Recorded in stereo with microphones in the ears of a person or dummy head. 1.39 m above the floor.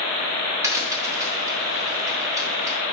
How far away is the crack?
About 0.7 m.